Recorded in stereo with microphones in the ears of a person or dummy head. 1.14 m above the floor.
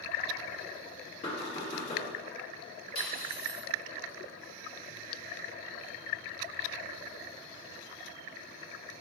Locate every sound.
1.2 s knocking: 35° left (ahead or behind), 1.2 m
3.0 s cutlery clinking: 55° left (ahead or behind), 1.9 m